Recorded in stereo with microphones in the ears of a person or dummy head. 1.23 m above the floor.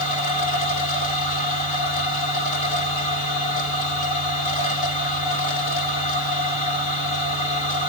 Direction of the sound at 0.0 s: 45° left (ahead or behind).